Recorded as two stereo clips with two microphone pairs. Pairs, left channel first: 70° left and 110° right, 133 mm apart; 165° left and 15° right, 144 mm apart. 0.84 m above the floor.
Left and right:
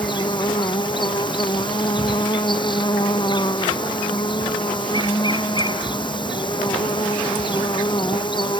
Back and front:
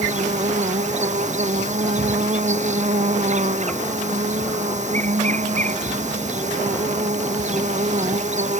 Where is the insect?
15° left.